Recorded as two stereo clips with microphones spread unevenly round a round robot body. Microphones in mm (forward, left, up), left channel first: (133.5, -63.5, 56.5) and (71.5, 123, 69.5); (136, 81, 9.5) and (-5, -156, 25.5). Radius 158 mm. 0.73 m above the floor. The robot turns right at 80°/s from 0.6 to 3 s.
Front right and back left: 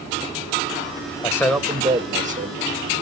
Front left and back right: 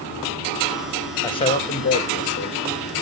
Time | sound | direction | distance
1.2 | a man speaking | 10° right | 1.2 m